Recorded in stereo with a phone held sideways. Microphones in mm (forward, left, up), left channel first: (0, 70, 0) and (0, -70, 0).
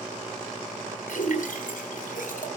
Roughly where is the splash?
Left.